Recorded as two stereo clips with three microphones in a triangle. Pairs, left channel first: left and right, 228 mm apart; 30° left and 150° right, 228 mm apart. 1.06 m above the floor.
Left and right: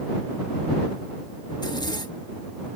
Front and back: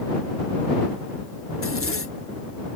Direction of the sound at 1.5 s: 20° left.